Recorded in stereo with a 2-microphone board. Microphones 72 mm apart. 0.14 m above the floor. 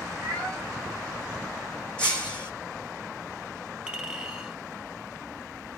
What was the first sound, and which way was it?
A cat meowing, 15° left (ahead or behind).